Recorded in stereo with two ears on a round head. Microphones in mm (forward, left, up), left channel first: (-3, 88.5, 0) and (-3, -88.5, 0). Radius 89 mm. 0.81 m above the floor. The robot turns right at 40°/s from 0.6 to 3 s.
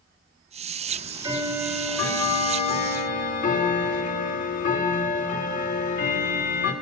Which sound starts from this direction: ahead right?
Ticking, at 0.9 s.